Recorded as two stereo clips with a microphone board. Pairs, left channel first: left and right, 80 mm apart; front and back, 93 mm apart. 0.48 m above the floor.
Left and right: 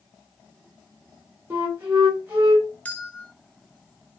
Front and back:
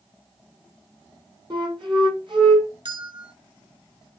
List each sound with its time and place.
1.5 s a flute: 150° right, 2.5 m
2.9 s a bell: 160° left, 1.1 m